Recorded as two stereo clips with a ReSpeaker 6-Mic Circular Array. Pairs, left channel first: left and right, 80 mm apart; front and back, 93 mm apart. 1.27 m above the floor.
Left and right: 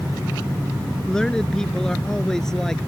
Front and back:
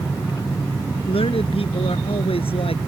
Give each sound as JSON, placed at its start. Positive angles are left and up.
{"t": 1.1, "sound": "a man speaking", "azimuth_deg": 10}